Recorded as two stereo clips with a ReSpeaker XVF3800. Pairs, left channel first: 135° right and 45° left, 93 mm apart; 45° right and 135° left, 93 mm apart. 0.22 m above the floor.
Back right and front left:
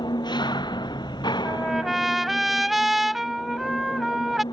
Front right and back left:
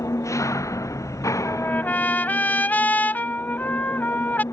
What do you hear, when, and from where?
0.0 s an engine running: 100° right
1.4 s a trumpet: 40° right